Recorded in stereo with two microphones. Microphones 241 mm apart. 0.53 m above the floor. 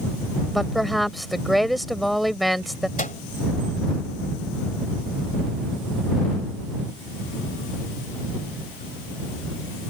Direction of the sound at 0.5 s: Centre (ahead or behind).